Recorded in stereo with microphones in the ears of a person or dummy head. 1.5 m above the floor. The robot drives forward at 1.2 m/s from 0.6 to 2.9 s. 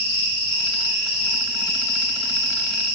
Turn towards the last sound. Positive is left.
turn(degrees=50)  # may be behind; listen again after turning